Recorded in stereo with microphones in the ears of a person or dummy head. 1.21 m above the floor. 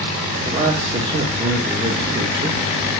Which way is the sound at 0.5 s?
35° right (ahead or behind).